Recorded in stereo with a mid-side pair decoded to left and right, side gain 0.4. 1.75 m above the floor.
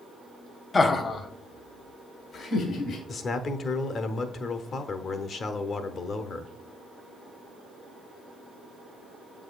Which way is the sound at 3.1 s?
55° left.